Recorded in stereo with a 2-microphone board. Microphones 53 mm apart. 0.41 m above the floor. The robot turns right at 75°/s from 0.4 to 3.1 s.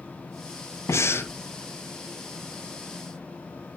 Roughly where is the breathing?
Left.